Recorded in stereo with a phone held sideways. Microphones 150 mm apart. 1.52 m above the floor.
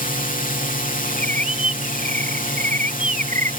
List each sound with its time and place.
0.0 s a drone: 65° left (ahead or behind)
1.1 s a bird: 55° right (ahead or behind)